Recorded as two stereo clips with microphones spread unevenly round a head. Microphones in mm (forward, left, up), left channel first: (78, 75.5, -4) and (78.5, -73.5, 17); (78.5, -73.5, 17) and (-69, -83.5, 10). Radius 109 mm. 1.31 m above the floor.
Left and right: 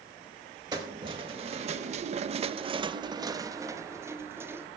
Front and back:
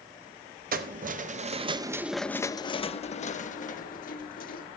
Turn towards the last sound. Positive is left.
turn(degrees=-15)